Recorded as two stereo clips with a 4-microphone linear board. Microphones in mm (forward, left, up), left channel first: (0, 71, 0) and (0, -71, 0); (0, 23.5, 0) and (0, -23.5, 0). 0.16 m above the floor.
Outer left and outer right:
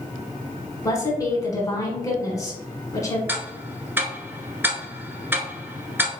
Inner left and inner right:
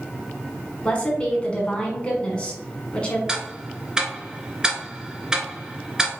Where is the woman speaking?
25° left (ahead or behind), 1.3 m.